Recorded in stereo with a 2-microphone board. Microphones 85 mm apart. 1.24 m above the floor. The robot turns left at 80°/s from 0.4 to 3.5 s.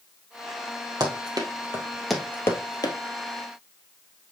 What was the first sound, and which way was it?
Running footsteps, 55° right (ahead or behind).